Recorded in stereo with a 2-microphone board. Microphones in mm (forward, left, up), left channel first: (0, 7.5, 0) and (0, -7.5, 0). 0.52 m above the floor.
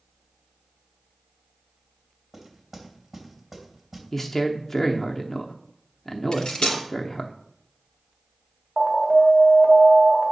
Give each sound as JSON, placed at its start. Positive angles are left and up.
{"t": 2.3, "sound": "knocking", "side_deg": -10, "distance_m": 3.0}
{"t": 4.1, "sound": "a man speaking", "side_deg": 20, "distance_m": 0.7}
{"t": 6.3, "sound": "cutlery clinking", "side_deg": 80, "distance_m": 2.5}
{"t": 8.8, "sound": "an alarm", "side_deg": -10, "distance_m": 2.0}